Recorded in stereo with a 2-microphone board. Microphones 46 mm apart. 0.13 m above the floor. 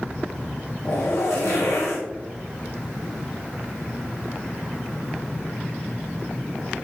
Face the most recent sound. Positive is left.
turn(degrees=85)